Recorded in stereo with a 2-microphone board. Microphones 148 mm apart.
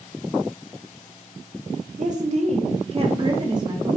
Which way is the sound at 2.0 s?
55° right (ahead or behind).